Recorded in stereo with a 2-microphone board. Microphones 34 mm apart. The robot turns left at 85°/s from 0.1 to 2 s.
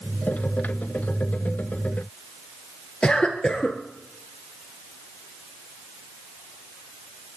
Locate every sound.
3.0 s a cough: 35° left (ahead or behind), 1.6 m